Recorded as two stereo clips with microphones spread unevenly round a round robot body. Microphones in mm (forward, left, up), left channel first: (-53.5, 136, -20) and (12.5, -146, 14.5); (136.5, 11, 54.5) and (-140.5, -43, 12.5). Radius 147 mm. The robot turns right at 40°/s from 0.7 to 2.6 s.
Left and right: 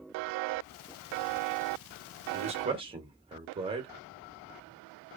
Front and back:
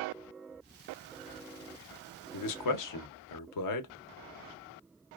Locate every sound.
2.3 s a man speaking: 10° right, 0.7 m; by 3.9 s straight ahead, 0.7 m